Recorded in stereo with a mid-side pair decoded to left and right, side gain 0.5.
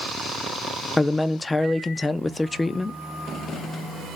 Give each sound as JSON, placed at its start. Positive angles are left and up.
{"t": 1.0, "sound": "a man speaking", "azimuth_deg": 20, "distance_m": 0.6}